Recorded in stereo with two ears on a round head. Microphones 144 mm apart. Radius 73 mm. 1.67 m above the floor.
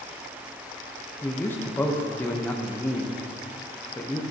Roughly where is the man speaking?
Centre.